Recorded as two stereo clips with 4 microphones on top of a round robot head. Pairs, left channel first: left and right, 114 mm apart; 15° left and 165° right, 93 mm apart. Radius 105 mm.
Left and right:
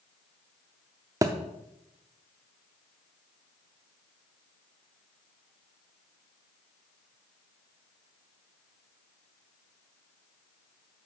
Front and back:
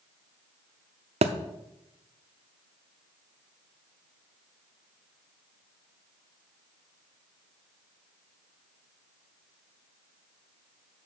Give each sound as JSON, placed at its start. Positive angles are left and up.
{"t": 1.2, "sound": "a thud", "azimuth_deg": -155, "distance_m": 0.6}